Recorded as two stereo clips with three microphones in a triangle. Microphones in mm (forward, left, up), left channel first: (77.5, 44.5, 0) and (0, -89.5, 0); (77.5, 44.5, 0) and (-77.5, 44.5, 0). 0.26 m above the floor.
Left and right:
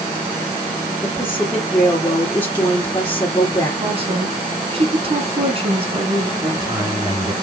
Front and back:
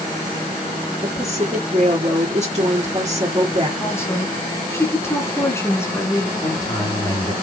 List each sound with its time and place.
1.0 s a woman speaking: 130° left, 3 m
3.8 s a woman speaking: 70° right, 2.5 m
6.4 s a man speaking: 60° right, 4.5 m